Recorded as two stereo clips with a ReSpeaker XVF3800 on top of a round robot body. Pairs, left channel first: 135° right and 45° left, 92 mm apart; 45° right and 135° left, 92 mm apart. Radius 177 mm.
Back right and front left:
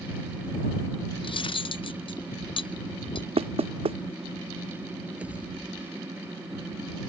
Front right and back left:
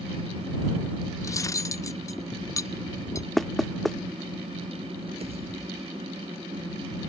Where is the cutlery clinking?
105° right.